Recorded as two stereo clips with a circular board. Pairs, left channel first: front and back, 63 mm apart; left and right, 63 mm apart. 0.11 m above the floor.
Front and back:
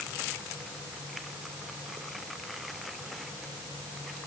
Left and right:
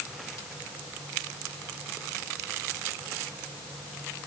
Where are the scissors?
No scissors in this recording.